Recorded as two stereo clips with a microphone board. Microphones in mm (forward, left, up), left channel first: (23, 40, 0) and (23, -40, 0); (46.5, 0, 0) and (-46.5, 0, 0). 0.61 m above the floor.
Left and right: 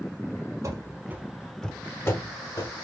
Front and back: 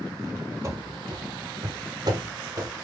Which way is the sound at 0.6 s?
125° right.